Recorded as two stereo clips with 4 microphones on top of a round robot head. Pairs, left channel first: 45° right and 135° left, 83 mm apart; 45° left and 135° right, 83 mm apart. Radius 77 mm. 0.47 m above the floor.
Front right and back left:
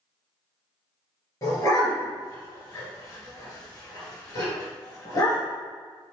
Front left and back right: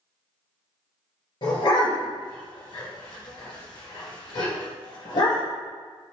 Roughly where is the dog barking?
Ahead.